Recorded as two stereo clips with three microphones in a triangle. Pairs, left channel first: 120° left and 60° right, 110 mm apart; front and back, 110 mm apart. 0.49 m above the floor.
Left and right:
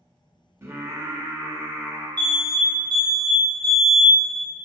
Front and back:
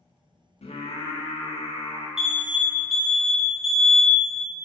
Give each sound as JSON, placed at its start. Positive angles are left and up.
{"t": 0.6, "sound": "singing", "azimuth_deg": 5, "distance_m": 0.5}
{"t": 2.2, "sound": "an alarm", "azimuth_deg": -95, "distance_m": 0.6}